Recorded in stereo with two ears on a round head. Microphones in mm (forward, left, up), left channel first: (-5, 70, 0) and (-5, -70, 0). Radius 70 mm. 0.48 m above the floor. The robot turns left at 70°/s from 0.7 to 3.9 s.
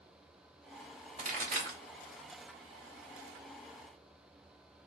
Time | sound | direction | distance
1.2 | a pop | 40° right (ahead or behind) | 1.8 m